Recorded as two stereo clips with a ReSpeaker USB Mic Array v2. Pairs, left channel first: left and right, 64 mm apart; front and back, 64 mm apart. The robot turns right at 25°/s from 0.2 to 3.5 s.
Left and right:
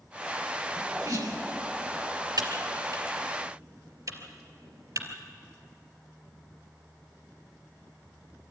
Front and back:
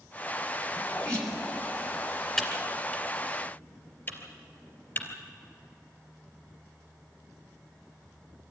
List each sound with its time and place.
0.8 s a sneeze: 85° right, 5.5 m; by 1.4 s 70° right, 5.5 m
2.4 s typing on a keyboard: 80° right, 3 m; by 5.1 s 50° right, 3 m